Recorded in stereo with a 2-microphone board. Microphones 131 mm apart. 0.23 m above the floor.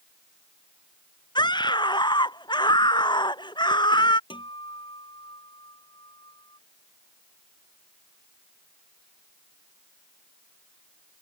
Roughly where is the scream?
Left.